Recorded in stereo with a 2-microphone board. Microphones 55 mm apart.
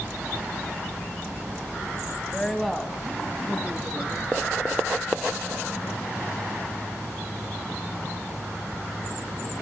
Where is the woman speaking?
10° left (ahead or behind), 1.1 m; by 4.3 s 10° right (ahead or behind), 3.5 m.